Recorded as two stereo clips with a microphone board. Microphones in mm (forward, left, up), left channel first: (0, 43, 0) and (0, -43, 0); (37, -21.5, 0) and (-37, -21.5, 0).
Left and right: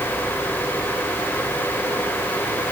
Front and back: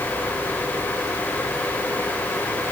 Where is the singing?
I don't hear singing.